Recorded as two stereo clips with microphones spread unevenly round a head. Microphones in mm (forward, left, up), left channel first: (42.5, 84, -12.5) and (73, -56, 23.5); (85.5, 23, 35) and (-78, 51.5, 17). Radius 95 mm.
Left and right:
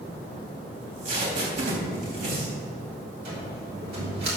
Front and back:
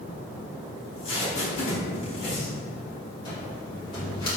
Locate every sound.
0.8 s tape being pulled: 70° right, 3.5 m
3.2 s a cupboard door: 80° right, 3.5 m